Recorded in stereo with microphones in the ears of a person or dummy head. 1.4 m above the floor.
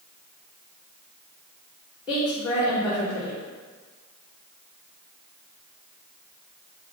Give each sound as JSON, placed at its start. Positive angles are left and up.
{"t": 2.1, "sound": "a woman speaking", "side_deg": 25, "distance_m": 3.5}